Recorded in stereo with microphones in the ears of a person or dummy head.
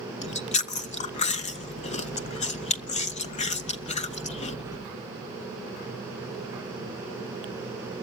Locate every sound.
0.2 s chewing: 35° left (ahead or behind), 0.6 m